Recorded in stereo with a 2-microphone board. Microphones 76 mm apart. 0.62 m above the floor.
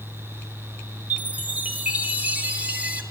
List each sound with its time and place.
1.1 s a chime: 20° right (ahead or behind), 1.0 m